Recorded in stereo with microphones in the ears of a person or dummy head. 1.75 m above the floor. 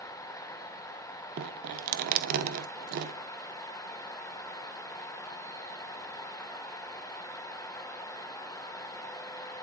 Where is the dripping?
50° right (ahead or behind), 0.9 m.